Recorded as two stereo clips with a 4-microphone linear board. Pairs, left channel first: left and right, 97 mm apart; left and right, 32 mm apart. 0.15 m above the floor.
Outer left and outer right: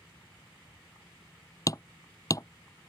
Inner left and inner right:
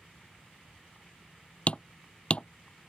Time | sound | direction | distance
1.7 | hammering | 40° left (ahead or behind) | ?